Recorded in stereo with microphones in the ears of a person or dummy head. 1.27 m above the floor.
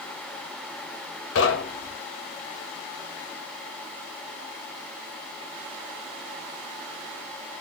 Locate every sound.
1.4 s knocking: 85° left, 0.7 m